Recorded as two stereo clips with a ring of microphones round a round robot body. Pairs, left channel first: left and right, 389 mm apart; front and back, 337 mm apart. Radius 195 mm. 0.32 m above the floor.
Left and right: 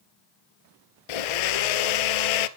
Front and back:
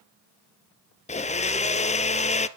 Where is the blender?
70° left, 1.1 m.